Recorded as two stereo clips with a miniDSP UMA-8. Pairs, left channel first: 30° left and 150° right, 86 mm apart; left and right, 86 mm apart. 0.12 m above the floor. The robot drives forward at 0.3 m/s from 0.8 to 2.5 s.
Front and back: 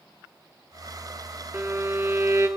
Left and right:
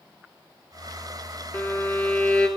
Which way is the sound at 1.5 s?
155° left.